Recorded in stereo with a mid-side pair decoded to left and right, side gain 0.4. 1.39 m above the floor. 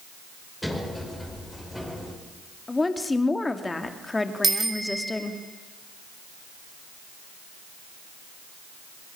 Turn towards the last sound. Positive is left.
turn(degrees=-30)